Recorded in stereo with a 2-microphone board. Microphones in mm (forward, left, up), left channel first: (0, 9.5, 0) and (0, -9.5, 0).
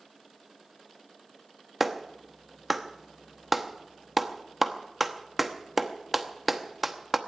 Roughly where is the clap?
Centre.